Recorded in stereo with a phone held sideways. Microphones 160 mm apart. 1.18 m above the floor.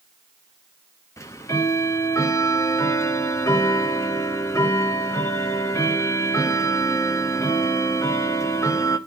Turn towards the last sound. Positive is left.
turn(degrees=20)  # may be behind; listen again after turning